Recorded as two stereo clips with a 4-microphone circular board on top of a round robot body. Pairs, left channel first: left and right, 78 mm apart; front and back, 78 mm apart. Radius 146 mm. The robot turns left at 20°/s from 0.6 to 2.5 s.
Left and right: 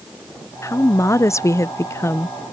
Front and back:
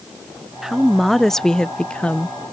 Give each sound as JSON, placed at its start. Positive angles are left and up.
{"t": 0.6, "sound": "a woman speaking", "azimuth_deg": 95}